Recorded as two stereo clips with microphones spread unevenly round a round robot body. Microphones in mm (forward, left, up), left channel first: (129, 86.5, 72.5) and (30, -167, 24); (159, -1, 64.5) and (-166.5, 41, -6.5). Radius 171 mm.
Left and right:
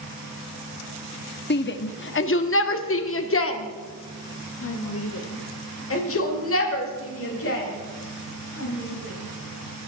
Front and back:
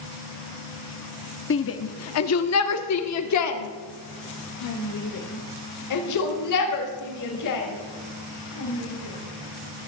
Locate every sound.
1.5 s a shout: 35° left, 1.2 m; by 9.9 s 30° left, 5 m